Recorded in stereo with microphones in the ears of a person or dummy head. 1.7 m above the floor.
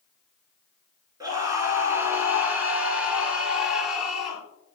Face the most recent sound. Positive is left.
turn(degrees=5)  # may be behind; listen again after turning